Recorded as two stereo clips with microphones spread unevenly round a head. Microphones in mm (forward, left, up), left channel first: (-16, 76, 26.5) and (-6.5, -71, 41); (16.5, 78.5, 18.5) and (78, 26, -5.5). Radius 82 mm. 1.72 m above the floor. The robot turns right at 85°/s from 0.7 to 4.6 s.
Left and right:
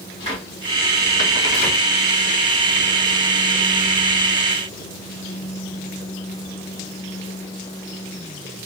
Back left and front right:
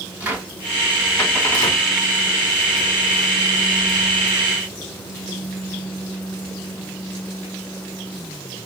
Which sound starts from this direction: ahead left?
A cupboard door, at 0.2 s.